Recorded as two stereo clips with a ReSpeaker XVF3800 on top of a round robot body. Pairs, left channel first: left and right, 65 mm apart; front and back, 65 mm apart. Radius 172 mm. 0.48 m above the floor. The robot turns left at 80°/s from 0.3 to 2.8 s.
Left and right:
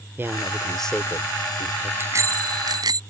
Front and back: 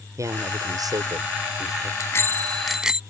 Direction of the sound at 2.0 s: 35° right.